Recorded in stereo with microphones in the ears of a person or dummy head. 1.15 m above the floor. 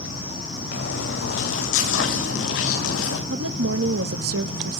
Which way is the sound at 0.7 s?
70° left (ahead or behind).